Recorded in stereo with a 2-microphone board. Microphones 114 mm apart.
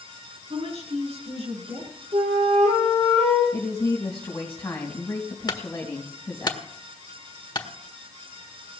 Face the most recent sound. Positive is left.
turn(degrees=40)  # may be behind; listen again after turning